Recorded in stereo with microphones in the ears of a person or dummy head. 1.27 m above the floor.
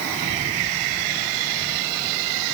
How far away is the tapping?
I don't hear tapping.